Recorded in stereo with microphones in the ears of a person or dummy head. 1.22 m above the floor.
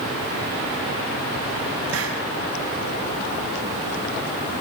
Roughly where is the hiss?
Right.